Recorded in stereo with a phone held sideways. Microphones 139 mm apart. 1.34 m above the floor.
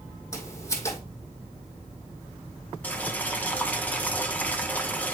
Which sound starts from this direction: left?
Footsteps, at 0.3 s.